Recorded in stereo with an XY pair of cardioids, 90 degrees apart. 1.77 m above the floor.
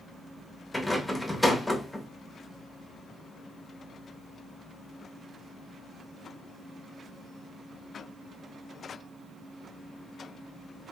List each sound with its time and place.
0.7 s a rattle: 10° left, 0.7 m